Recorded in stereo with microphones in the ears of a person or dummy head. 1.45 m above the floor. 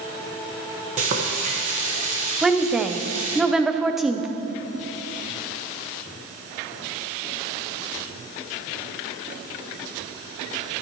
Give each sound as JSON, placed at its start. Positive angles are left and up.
{"t": 1.0, "sound": "frying", "side_deg": -40, "distance_m": 1.6}
{"t": 2.4, "sound": "a woman speaking", "side_deg": -5, "distance_m": 0.7}